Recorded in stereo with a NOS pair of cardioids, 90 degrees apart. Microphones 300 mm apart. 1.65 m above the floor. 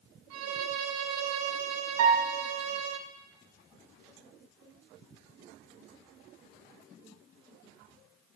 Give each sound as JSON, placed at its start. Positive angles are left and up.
{"t": 0.3, "sound": "a violin", "azimuth_deg": -65, "distance_m": 0.9}
{"t": 2.0, "sound": "a piano", "azimuth_deg": -55, "distance_m": 1.5}